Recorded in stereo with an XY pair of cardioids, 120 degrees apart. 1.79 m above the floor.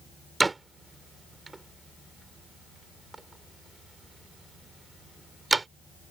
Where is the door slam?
20° right.